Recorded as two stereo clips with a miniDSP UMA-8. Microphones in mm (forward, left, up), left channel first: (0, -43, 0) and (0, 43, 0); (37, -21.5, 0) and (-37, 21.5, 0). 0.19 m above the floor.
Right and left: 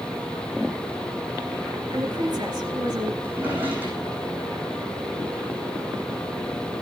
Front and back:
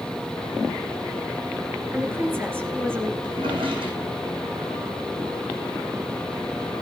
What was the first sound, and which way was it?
A woman speaking, 90° left.